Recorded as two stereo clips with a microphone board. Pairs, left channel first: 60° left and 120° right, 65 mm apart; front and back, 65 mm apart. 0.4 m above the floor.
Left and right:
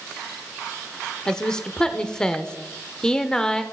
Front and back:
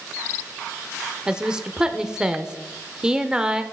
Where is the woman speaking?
120° left, 0.8 m.